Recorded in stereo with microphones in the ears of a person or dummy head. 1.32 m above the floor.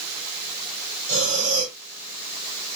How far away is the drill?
No drill in this recording.